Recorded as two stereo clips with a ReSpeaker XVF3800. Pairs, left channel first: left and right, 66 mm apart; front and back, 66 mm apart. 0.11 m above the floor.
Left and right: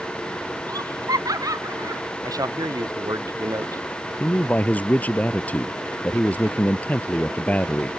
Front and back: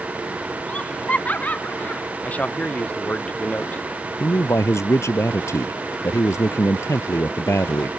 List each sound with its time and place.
0.7 s laughter: 70° right; by 2.0 s 65° right
2.2 s a man speaking: 70° right
4.2 s a man speaking: 30° left